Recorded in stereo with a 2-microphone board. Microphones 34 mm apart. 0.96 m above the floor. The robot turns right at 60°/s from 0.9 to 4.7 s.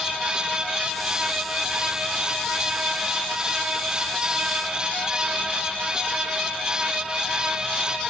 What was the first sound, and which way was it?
Only background noise.